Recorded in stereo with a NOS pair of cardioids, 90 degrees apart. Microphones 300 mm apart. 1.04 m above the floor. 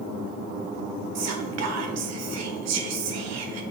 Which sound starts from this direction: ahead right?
Whispering, at 1.1 s.